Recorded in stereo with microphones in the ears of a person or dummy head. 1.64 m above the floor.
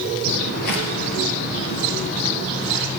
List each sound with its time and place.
0.2 s footsteps: 50° left (ahead or behind), 2.5 m; by 3.0 s 20° left (ahead or behind), 3.5 m